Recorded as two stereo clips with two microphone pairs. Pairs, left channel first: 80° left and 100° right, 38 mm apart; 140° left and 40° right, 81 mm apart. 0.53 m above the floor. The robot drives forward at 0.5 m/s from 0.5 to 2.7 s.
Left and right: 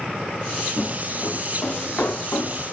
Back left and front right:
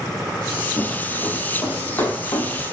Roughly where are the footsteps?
Left.